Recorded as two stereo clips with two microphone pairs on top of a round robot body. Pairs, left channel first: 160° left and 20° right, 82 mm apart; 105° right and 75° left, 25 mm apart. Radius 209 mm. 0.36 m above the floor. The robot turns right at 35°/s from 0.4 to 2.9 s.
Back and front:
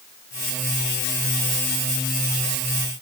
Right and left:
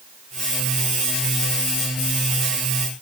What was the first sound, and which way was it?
Only background noise.